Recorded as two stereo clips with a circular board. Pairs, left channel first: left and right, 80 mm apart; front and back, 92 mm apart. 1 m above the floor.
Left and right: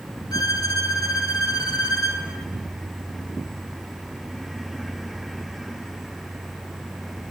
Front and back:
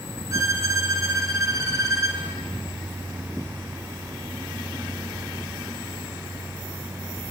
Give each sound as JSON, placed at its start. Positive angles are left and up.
{"t": 0.3, "sound": "a violin", "azimuth_deg": 125, "distance_m": 2.5}